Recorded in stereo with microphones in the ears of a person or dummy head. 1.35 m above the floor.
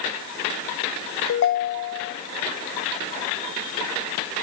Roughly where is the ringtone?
Left.